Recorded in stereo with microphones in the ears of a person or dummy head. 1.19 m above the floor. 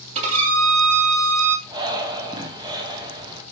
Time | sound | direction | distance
0.1 | a violin | 35° right (ahead or behind) | 1.7 m
1.7 | breathing | 20° right (ahead or behind) | 0.6 m